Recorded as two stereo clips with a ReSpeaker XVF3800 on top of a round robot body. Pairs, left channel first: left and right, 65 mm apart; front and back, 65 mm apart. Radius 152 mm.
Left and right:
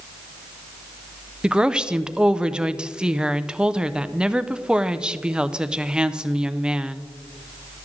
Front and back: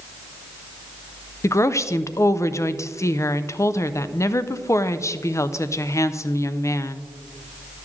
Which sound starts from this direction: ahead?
A woman speaking, at 1.4 s.